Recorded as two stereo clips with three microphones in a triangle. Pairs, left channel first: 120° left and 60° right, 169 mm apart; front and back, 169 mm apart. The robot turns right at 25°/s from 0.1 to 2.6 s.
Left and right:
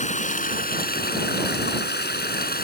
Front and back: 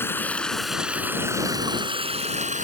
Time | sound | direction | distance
0.0 | running water | 75° left | ?